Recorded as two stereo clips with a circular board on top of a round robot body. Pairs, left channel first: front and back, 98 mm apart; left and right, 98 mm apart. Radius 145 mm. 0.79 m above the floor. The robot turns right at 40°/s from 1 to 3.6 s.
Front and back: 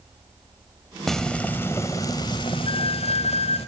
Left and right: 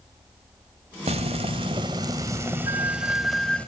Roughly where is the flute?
Ahead right.